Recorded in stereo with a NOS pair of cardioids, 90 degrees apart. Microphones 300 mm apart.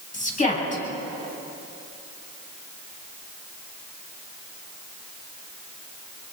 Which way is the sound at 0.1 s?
25° left.